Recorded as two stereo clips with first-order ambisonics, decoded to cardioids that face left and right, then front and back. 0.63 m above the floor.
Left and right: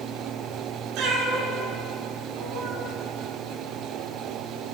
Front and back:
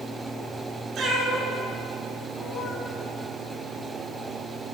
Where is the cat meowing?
120° right, 2 m; by 2.9 s 60° right, 1.7 m.